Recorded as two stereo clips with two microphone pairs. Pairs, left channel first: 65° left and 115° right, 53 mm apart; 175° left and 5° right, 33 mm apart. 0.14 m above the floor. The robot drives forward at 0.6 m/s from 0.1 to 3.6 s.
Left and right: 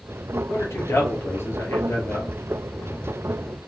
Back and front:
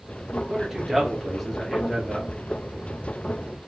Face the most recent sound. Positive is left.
turn(degrees=125)